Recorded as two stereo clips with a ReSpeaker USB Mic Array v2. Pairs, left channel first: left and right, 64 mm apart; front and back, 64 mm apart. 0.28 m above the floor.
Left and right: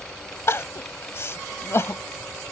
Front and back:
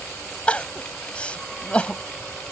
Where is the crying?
65° left.